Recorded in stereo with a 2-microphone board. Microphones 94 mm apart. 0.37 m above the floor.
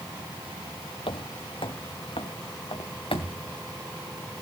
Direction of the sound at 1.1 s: 70° left (ahead or behind).